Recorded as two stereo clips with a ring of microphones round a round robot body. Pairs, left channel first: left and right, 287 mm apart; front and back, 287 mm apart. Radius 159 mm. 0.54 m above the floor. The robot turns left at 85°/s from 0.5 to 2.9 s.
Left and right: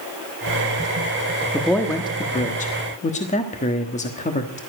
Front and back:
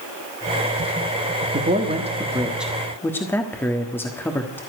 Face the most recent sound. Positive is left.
turn(degrees=75)